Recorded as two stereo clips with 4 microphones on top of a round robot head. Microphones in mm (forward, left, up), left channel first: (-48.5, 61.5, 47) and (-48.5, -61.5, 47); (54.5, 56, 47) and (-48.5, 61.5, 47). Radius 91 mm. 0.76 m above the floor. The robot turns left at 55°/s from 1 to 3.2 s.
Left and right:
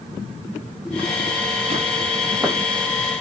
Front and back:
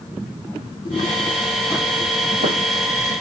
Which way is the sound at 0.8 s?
5° right.